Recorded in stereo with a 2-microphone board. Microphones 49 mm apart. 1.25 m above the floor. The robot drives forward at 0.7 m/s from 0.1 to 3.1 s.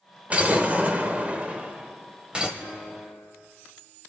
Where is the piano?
80° right, 4 m; by 3.3 s 75° right (ahead or behind), 4 m.